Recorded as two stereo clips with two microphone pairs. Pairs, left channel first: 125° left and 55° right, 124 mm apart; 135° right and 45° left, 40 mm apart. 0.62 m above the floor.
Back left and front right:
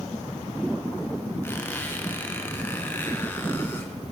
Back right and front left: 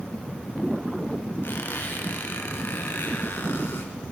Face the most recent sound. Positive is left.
turn(degrees=-160)